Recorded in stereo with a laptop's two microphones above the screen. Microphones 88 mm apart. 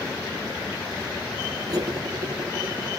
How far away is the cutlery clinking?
About 1.0 m.